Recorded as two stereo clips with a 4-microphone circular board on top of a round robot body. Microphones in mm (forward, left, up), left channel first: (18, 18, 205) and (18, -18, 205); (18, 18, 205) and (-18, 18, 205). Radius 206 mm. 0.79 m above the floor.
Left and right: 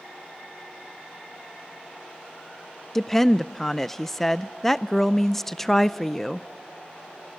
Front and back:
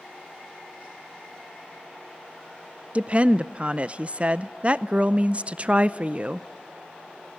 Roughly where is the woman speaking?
Behind.